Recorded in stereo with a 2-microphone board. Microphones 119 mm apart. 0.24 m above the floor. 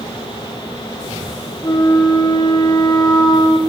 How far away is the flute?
About 2.5 m.